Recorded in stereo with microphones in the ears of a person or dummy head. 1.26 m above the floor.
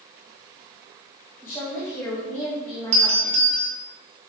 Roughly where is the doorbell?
Right.